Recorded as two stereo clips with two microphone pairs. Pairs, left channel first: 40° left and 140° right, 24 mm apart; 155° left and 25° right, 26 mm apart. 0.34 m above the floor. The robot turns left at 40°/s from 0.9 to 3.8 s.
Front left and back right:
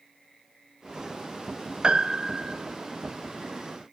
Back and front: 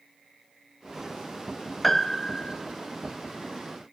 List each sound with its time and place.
1.8 s a piano: 125° right, 1.1 m; by 2.6 s 155° right, 1.1 m